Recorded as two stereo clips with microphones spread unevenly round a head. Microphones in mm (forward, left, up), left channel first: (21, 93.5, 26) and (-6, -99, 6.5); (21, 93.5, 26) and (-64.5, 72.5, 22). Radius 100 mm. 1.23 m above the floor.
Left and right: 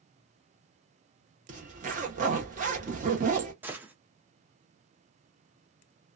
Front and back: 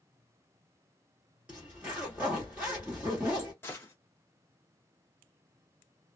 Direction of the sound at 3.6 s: 15° right.